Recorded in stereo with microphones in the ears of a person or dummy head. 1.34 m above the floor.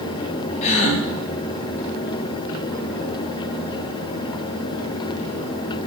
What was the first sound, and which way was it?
A gasp, 35° left (ahead or behind).